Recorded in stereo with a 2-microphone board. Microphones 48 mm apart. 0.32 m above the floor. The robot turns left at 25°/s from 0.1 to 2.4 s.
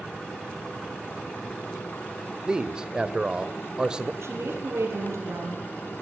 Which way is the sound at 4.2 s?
70° right (ahead or behind).